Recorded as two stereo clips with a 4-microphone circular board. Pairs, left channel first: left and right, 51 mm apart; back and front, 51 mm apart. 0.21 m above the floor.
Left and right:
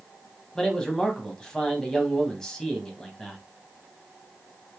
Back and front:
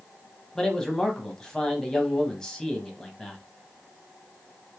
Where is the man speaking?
135° left, 1.0 m.